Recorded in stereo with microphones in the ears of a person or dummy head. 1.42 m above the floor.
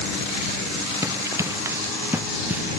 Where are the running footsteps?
25° right (ahead or behind); by 2.6 s 10° right (ahead or behind).